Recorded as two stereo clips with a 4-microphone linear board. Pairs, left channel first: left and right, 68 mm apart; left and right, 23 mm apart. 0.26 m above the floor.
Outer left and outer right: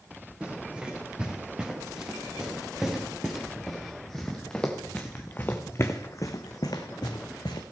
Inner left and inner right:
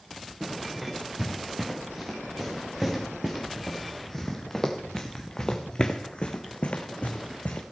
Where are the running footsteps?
15° right (ahead or behind), 4.5 m; by 7.6 s 85° left, 1.5 m.